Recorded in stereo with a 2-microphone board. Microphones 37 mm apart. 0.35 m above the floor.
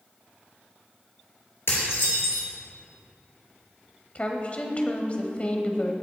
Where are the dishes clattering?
80° left, 4 m.